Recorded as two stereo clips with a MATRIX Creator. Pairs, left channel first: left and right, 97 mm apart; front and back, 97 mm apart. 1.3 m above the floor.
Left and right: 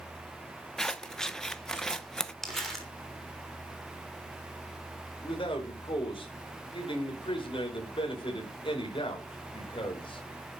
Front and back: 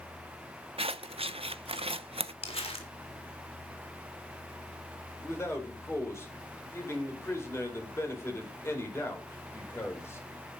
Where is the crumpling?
5° left, 3 m.